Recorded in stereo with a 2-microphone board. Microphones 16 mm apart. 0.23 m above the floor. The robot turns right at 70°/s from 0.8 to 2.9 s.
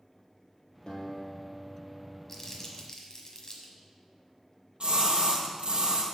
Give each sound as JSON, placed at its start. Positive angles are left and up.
{"t": 0.9, "sound": "a guitar", "azimuth_deg": 130, "distance_m": 1.6}
{"t": 2.3, "sound": "crumpling", "side_deg": 20, "distance_m": 1.2}
{"t": 4.8, "sound": "a splash", "side_deg": -70, "distance_m": 1.6}